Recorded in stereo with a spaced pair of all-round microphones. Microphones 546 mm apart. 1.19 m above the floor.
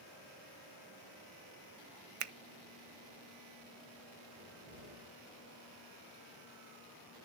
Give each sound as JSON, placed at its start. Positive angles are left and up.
{"t": 2.2, "sound": "a finger snap", "side_deg": -70, "distance_m": 0.5}
{"t": 4.4, "sound": "a cupboard door", "side_deg": -40, "distance_m": 7.0}